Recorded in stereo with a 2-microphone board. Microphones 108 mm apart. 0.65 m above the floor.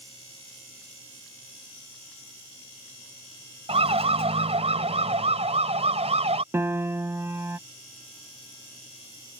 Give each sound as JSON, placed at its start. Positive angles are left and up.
{"t": 3.7, "sound": "a siren", "side_deg": -65}
{"t": 6.5, "sound": "a piano", "side_deg": -25}